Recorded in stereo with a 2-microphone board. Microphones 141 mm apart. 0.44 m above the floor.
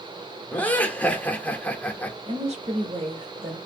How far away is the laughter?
About 0.9 m.